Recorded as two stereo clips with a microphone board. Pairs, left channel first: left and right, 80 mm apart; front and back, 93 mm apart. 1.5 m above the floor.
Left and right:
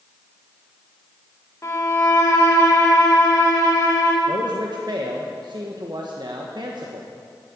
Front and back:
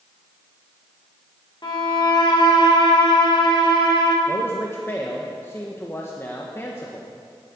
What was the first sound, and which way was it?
A violin, 35° left.